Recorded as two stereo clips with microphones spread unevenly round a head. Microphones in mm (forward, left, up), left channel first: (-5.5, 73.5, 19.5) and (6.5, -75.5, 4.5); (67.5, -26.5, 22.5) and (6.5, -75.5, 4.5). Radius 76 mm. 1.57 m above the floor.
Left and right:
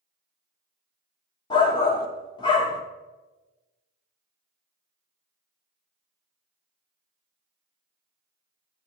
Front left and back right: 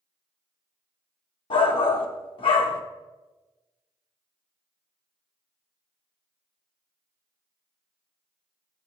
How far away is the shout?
About 0.6 m.